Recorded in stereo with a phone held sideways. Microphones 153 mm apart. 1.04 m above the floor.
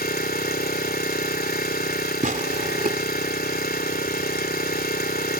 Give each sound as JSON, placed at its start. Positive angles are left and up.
{"t": 0.0, "sound": "an engine running", "side_deg": 85}
{"t": 2.2, "sound": "tearing paper", "side_deg": -60}